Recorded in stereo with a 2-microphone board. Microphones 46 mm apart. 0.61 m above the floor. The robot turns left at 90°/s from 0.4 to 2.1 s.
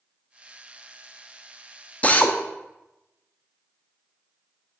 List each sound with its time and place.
2.0 s a drill: 30° left (ahead or behind), 0.7 m